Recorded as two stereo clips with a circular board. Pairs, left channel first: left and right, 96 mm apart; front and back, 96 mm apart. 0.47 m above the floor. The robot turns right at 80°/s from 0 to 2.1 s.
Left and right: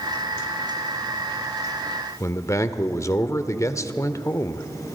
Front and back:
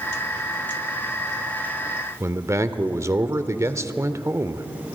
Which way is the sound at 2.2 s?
135° left.